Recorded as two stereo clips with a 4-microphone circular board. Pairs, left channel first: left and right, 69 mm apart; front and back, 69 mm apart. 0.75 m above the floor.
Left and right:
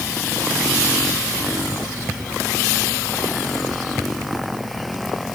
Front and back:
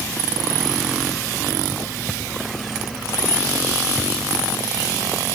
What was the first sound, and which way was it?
Only background noise.